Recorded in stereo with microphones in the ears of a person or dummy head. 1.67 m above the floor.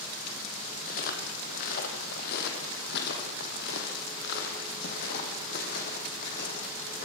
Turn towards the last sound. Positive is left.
turn(degrees=40)  # may be behind; listen again after turning